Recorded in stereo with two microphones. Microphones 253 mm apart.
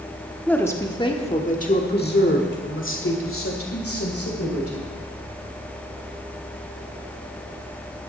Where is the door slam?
No door slam in this recording.